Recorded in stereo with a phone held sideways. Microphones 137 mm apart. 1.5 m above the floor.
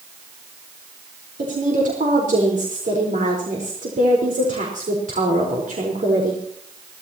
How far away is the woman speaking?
About 4.5 m.